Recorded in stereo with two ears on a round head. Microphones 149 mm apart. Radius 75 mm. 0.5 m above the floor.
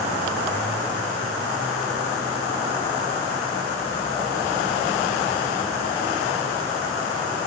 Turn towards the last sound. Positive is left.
No sound to turn to.